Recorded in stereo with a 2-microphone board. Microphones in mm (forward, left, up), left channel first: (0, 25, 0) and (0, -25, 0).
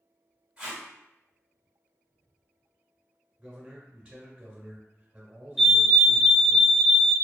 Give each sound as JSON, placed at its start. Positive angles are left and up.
{"t": 0.6, "sound": "tape being pulled", "side_deg": -15, "distance_m": 1.6}
{"t": 3.4, "sound": "a man speaking", "side_deg": -20, "distance_m": 0.7}
{"t": 5.6, "sound": "a fire alarm", "side_deg": -10, "distance_m": 1.1}